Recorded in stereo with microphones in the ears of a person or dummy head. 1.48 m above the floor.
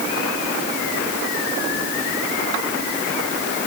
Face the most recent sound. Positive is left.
No sound to turn to.